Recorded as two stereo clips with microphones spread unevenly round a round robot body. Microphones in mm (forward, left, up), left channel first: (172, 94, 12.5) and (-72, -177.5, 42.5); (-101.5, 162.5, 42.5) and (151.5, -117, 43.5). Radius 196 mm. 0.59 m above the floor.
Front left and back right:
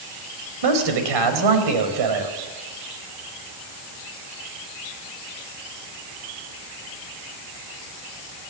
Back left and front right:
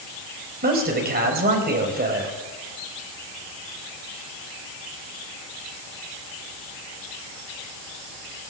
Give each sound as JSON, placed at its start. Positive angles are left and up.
{"t": 0.6, "sound": "a man speaking", "azimuth_deg": -115, "distance_m": 4.0}